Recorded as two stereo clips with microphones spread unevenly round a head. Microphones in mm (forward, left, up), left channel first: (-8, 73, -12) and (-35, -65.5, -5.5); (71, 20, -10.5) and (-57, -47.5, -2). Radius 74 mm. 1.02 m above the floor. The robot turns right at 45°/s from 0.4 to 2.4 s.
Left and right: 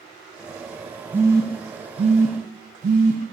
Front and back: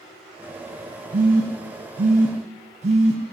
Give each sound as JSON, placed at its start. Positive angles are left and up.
{"t": 1.1, "sound": "a phone buzzing", "azimuth_deg": -175, "distance_m": 0.8}